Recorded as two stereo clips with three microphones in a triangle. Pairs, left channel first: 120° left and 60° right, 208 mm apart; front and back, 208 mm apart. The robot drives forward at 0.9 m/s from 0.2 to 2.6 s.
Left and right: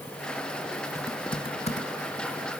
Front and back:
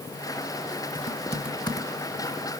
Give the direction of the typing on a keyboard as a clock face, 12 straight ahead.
11 o'clock.